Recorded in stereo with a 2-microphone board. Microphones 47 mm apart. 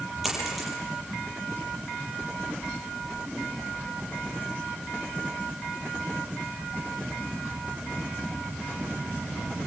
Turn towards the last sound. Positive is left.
turn(degrees=-5)  # may be behind; listen again after turning